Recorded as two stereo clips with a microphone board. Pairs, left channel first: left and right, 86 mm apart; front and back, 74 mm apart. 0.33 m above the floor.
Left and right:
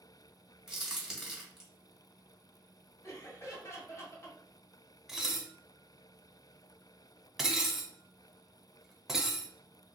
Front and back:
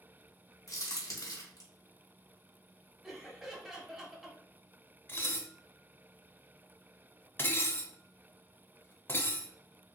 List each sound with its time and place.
0.7 s a crack: 5° right, 1.4 m
3.0 s laughter: 100° left, 1.5 m
5.1 s dishes clattering: 10° right, 0.6 m